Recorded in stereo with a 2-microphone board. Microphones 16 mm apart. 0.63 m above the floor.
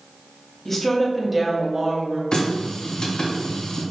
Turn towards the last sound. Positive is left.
turn(degrees=65)  # may be behind; listen again after turning